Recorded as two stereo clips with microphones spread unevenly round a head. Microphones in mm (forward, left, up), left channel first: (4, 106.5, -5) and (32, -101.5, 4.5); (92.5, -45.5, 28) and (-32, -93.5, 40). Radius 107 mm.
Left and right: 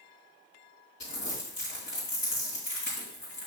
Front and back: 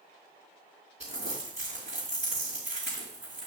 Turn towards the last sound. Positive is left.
turn(degrees=140)